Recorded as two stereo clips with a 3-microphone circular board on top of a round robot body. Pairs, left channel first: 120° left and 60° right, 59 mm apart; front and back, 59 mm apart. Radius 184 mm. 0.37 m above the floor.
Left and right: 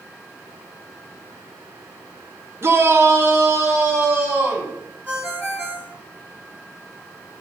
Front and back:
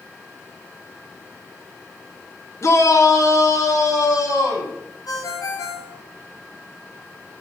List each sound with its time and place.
2.6 s a shout: 25° right, 2 m; by 4.8 s 15° right, 5 m
5.1 s a ringtone: 5° right, 3 m